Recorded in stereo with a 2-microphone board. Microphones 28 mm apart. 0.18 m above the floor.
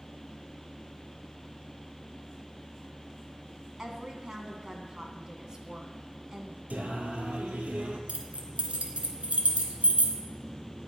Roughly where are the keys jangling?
Right.